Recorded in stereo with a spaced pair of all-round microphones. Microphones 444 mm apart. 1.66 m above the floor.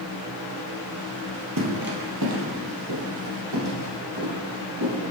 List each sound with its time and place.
1.6 s footsteps: 45° right (ahead or behind), 2.5 m; by 5.1 s 60° right (ahead or behind), 6.5 m